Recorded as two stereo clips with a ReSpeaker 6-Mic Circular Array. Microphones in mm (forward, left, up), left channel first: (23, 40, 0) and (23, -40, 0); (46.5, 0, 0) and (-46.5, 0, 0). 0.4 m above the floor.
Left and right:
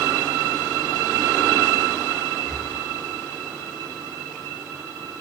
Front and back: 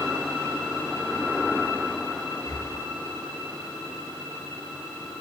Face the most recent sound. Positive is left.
turn(degrees=10)